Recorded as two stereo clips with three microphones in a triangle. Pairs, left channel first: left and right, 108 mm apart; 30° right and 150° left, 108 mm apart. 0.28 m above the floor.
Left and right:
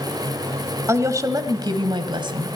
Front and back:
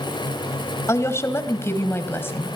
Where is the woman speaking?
60° right, 1.6 m; by 2.6 s 95° right, 2 m.